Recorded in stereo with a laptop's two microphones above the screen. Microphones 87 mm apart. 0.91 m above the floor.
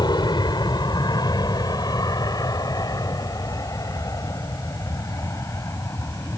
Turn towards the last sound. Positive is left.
turn(degrees=35)  # may be behind; listen again after turning